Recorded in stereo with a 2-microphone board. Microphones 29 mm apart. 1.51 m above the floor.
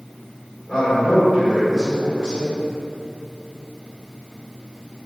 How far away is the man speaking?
About 1.6 m.